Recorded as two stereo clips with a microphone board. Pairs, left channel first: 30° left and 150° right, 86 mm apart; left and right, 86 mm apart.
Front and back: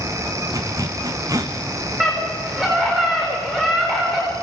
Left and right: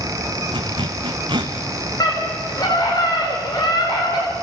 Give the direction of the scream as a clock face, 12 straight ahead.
8 o'clock.